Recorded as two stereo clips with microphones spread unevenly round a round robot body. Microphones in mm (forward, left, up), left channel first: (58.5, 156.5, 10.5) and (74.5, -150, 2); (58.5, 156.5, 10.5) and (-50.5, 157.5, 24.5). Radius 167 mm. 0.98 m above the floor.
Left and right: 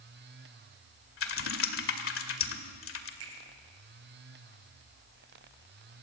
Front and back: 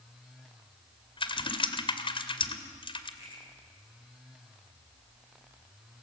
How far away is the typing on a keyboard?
About 2 m.